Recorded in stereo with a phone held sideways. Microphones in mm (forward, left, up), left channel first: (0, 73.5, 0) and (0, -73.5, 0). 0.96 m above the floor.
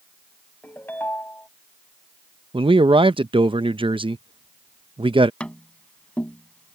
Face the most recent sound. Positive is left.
turn(degrees=10)  # may be behind; listen again after turning